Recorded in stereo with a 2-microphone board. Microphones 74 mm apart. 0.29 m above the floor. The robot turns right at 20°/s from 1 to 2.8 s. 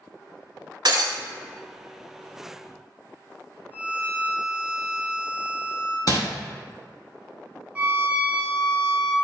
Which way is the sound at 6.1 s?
55° left (ahead or behind).